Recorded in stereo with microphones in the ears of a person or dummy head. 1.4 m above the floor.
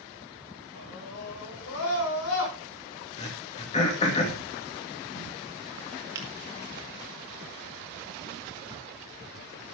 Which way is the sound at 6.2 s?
15° right (ahead or behind).